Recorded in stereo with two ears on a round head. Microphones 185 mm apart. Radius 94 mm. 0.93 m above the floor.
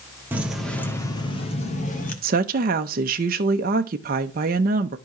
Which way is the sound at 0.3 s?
10° right (ahead or behind).